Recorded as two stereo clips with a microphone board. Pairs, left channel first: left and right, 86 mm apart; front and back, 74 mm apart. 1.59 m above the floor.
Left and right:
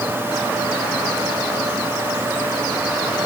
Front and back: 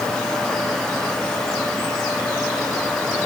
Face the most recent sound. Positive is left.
No sound to turn to.